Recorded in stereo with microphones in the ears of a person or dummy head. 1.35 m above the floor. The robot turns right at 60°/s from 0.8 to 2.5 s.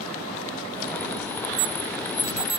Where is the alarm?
75° right (ahead or behind); by 2.6 s 30° right (ahead or behind).